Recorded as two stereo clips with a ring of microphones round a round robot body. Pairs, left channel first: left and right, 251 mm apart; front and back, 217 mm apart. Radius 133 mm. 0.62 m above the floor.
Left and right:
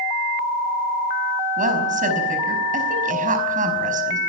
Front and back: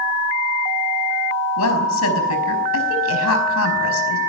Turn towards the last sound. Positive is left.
turn(degrees=-30)